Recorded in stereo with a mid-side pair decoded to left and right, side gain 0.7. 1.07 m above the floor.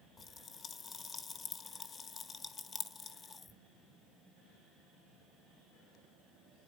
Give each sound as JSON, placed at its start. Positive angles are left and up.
{"t": 0.2, "sound": "a pop", "azimuth_deg": 20, "distance_m": 1.1}